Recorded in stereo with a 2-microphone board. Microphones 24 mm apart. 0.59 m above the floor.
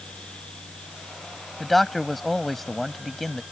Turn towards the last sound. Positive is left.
turn(degrees=5)  # may be behind; listen again after turning